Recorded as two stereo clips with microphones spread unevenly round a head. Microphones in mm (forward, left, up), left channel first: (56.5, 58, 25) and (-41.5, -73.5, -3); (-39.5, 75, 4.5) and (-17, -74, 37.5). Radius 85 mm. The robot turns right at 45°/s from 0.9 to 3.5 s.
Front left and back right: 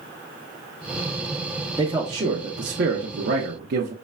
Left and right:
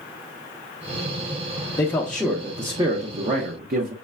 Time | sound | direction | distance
1.8 | a man speaking | 160° left | 0.7 m